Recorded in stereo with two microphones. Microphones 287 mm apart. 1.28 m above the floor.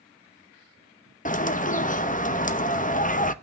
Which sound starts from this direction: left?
A bird, at 1.2 s.